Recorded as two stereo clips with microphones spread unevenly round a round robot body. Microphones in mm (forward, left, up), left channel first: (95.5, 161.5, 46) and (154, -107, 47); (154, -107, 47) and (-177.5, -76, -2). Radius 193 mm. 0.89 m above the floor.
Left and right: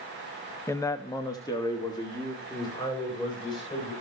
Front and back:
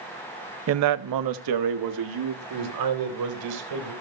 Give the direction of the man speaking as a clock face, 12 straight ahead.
6 o'clock.